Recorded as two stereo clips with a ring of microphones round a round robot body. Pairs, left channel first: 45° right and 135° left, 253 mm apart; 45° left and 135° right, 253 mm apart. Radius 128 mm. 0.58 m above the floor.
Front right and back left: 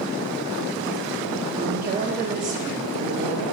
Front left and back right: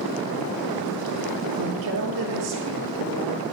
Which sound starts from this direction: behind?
A woman speaking, at 1.6 s.